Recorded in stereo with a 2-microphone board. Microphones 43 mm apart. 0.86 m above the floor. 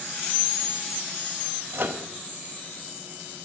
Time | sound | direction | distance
1.7 | a microwave | 50° right (ahead or behind) | 0.9 m